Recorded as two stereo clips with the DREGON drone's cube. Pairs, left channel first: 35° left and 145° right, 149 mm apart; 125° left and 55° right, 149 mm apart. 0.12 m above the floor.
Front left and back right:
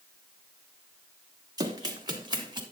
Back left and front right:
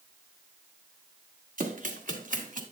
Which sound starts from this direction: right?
Running footsteps, at 1.6 s.